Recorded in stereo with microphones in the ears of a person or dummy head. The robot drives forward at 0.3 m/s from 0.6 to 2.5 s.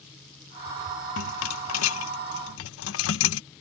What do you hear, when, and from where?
1.2 s a rattle: 80° left; by 3.4 s 75° left (ahead or behind)